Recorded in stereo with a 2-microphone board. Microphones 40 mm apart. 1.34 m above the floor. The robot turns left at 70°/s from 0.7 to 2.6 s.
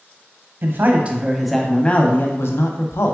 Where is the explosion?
I don't hear an explosion.